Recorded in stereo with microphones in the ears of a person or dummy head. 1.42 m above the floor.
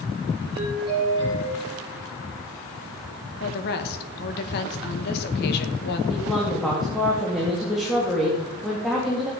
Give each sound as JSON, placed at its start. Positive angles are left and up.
{"t": 0.6, "sound": "a doorbell", "side_deg": -30, "distance_m": 5.5}
{"t": 3.4, "sound": "a woman speaking", "side_deg": 55, "distance_m": 1.7}
{"t": 6.1, "sound": "a woman speaking", "side_deg": -5, "distance_m": 2.5}